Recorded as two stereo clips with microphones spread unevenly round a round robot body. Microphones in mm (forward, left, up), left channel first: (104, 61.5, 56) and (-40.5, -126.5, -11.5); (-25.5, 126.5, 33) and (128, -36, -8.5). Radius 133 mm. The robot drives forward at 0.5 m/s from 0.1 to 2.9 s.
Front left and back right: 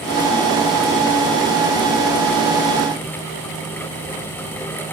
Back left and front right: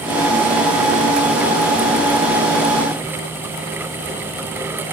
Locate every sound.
Only background noise.